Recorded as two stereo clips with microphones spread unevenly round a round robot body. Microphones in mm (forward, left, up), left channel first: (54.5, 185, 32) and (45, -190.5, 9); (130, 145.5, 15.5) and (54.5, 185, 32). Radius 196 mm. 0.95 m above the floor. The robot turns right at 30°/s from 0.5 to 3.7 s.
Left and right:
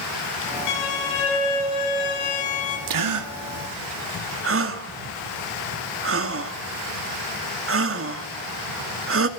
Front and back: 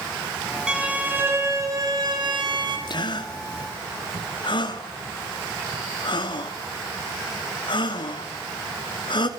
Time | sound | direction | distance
0.7 | a violin | 70° left | 7.5 m
2.9 | a gasp | 65° right | 2.5 m